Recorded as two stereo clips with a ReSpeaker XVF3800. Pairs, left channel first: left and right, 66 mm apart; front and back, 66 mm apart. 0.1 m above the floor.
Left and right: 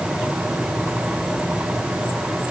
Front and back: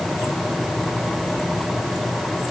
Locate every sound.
Only background noise.